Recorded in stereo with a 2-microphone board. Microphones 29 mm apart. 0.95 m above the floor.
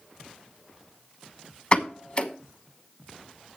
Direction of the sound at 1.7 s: 35° left (ahead or behind).